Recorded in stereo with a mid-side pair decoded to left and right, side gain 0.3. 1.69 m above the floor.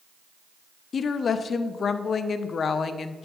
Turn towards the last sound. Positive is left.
turn(degrees=70)